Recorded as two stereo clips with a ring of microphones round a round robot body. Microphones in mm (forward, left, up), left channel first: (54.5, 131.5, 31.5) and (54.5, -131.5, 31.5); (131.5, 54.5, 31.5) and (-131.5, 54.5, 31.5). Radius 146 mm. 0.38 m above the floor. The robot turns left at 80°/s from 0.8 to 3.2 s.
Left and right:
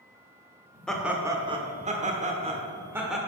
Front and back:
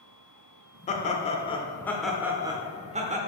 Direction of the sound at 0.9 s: 5° left.